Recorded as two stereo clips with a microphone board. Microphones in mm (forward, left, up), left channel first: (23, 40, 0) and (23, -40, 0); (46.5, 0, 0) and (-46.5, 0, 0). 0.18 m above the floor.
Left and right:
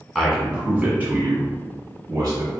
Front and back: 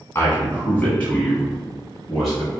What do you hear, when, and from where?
0.1 s a man speaking: 5° left, 1.4 m; by 2.6 s 90° right, 2 m